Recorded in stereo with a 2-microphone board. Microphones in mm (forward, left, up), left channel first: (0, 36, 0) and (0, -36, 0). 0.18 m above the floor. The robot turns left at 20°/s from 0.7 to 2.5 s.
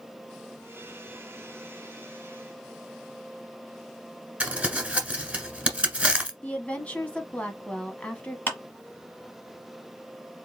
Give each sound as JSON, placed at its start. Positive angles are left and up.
{"t": 4.4, "sound": "crumpling", "side_deg": -15, "distance_m": 1.4}
{"t": 6.4, "sound": "a woman speaking", "side_deg": 20, "distance_m": 1.0}
{"t": 8.5, "sound": "a clap", "side_deg": 25, "distance_m": 1.4}